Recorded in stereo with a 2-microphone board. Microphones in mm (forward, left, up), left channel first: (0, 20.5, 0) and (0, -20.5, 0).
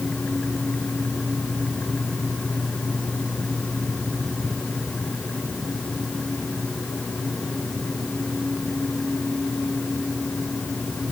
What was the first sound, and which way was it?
Only background noise.